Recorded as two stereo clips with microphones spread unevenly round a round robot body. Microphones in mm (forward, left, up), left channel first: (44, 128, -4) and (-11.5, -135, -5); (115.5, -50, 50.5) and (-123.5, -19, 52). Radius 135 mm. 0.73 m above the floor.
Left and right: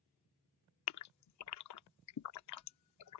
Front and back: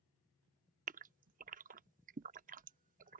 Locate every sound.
0.9 s a gasp: 110° left